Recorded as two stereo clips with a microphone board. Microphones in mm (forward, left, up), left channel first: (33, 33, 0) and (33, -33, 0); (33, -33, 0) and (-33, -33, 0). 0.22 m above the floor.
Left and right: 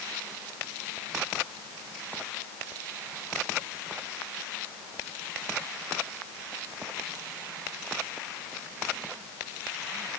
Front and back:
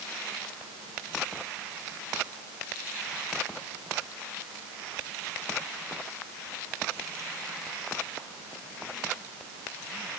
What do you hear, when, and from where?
Only background noise.